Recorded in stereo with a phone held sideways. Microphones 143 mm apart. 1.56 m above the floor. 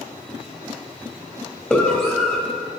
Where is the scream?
10° left (ahead or behind), 3 m.